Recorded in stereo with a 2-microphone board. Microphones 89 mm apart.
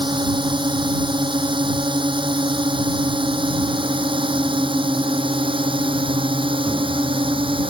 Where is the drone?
65° right (ahead or behind); by 7.7 s 75° right (ahead or behind).